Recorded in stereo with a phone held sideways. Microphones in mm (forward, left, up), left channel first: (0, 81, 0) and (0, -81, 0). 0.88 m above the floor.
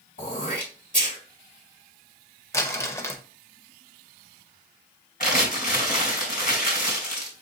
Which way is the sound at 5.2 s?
60° left (ahead or behind).